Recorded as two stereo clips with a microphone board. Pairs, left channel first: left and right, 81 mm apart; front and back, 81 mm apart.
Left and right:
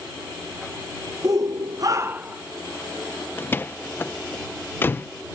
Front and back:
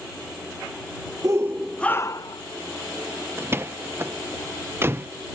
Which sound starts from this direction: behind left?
A door slam, at 3.4 s.